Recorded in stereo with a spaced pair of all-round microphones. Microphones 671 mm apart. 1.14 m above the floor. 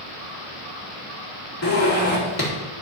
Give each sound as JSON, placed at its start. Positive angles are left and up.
{"t": 1.6, "sound": "a zipper", "side_deg": 25, "distance_m": 2.5}